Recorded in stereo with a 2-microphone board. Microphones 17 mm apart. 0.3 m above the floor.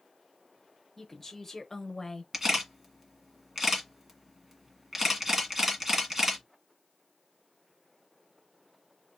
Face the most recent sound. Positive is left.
turn(degrees=-30)  # may be behind; listen again after turning